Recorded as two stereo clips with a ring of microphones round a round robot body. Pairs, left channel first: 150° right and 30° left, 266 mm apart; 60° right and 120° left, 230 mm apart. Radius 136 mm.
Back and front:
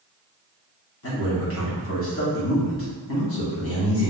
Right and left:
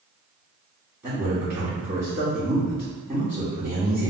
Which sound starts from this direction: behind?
A man speaking, at 1.0 s.